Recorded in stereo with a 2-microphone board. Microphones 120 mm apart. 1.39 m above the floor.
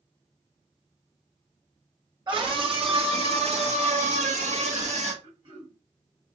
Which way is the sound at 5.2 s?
50° right (ahead or behind).